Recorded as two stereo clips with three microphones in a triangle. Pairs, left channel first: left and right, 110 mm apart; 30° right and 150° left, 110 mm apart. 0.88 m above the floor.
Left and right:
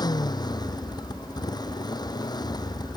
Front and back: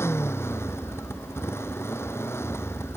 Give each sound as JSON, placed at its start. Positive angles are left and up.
{"t": 0.0, "sound": "a motorcycle", "azimuth_deg": 35}